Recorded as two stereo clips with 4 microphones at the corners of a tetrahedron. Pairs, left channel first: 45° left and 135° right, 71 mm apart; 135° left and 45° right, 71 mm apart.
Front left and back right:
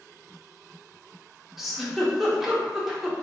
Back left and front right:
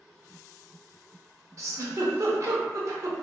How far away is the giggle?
About 0.5 m.